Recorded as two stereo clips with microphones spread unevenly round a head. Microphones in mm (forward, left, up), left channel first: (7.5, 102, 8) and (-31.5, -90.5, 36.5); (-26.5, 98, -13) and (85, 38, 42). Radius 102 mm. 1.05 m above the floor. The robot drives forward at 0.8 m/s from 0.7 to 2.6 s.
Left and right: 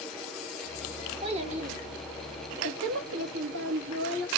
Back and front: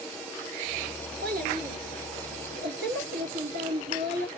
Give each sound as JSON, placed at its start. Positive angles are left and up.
{"t": 1.2, "sound": "a child speaking", "azimuth_deg": -40, "distance_m": 2.0}